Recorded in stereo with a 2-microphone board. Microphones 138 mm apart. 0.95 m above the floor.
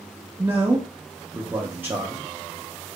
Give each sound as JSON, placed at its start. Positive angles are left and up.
{"t": 0.4, "sound": "a man speaking", "side_deg": -15, "distance_m": 0.6}